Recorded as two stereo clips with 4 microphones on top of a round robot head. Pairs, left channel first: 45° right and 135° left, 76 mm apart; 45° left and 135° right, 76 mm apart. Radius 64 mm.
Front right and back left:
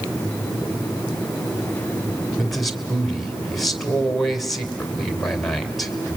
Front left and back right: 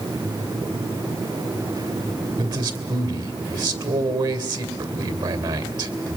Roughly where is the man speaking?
Behind right.